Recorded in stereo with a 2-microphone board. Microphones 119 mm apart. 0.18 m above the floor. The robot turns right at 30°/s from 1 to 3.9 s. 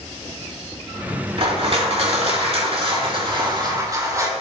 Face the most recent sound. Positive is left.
turn(degrees=-35)